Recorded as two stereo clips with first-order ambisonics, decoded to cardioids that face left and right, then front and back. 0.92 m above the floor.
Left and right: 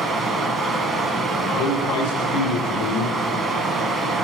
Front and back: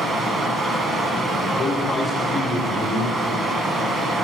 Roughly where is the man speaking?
Left.